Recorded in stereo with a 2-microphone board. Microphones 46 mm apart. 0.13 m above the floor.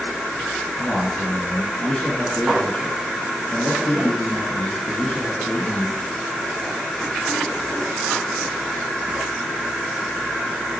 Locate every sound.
0.8 s a man speaking: 15° left (ahead or behind), 1.5 m